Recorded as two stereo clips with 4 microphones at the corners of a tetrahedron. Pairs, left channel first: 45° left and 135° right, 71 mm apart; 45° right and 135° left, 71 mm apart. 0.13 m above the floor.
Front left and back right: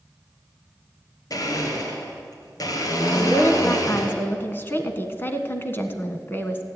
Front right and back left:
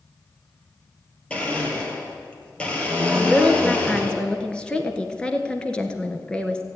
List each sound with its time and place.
1.3 s a blender: 25° left, 3 m
3.1 s a woman speaking: 20° left, 1.3 m